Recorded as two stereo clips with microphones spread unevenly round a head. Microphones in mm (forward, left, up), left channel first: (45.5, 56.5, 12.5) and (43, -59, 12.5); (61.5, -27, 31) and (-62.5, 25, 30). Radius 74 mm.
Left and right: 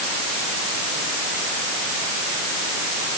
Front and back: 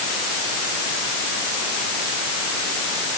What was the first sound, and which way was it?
Only background noise.